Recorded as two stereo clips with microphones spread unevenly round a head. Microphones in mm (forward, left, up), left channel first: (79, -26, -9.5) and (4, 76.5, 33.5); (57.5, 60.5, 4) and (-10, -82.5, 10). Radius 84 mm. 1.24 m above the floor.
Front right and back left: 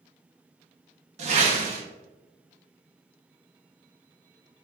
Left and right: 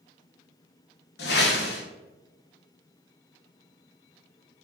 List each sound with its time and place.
1.2 s a whoosh: 100° left, 0.5 m